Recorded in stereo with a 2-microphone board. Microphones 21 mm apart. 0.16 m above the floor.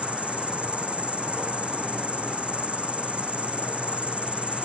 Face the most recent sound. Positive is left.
turn(degrees=-80)